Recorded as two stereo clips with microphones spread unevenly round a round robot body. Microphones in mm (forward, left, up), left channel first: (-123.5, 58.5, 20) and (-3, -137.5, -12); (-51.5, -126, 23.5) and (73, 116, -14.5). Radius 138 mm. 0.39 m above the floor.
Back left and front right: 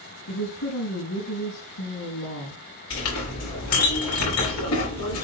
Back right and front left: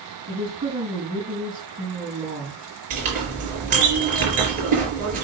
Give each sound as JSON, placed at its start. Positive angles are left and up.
{"t": 0.3, "sound": "a woman speaking", "azimuth_deg": 135, "distance_m": 4.5}
{"t": 2.9, "sound": "a clink", "azimuth_deg": 125, "distance_m": 4.5}